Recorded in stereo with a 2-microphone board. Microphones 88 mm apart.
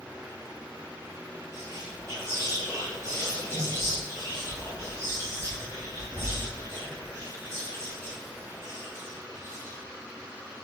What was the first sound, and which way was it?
Whispering, 30° right (ahead or behind).